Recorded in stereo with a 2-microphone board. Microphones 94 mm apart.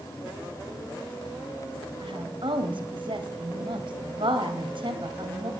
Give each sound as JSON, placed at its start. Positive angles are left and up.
{"t": 2.0, "sound": "a woman speaking", "side_deg": -65, "distance_m": 1.9}